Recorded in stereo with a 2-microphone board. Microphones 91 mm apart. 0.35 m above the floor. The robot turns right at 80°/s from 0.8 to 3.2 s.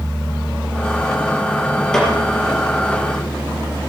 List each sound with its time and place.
1.9 s a snare drum: 5° left (ahead or behind), 4.5 m; by 2.1 s 20° left (ahead or behind), 4.5 m